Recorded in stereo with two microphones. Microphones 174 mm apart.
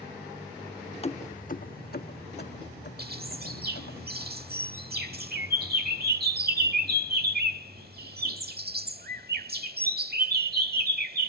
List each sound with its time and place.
1.0 s keys jangling: 35° left (ahead or behind); by 4.0 s 70° left (ahead or behind)
3.0 s a bird: 60° right (ahead or behind)